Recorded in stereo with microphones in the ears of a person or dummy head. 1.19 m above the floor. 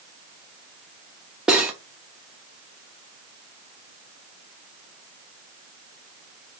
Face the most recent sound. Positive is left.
turn(degrees=-5)  # may be behind; listen again after turning